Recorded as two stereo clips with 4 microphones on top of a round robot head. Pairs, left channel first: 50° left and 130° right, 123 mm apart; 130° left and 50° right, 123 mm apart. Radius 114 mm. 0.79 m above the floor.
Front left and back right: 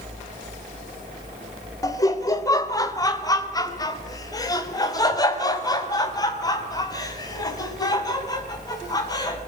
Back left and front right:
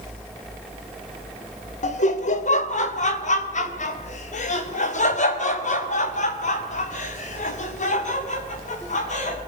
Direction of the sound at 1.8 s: 110° left.